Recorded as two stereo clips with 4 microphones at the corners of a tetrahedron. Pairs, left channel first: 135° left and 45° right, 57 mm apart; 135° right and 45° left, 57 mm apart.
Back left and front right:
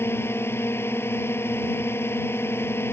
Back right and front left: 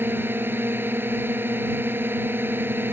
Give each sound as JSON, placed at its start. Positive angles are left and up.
{"t": 0.0, "sound": "a drone", "azimuth_deg": 95}